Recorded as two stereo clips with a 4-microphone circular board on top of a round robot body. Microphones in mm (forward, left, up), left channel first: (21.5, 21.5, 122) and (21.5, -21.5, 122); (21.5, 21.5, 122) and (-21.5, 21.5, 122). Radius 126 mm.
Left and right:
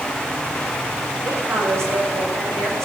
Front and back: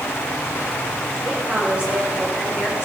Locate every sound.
1.2 s a woman speaking: 115° right, 4.5 m; by 2.9 s 105° right, 5 m